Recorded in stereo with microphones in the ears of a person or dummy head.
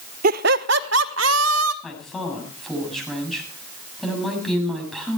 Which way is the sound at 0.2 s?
50° right (ahead or behind).